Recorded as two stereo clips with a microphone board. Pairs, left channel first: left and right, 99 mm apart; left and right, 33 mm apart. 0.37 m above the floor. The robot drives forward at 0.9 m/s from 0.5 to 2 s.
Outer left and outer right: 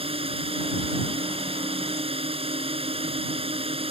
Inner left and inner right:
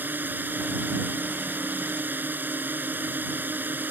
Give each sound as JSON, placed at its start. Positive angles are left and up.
{"t": 0.0, "sound": "a drone", "side_deg": -75}